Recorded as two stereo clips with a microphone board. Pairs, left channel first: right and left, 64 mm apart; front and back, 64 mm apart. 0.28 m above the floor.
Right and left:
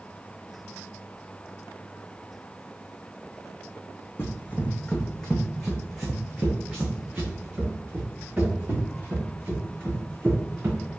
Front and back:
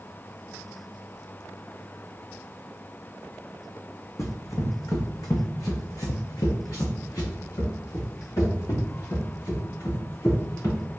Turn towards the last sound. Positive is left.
turn(degrees=35)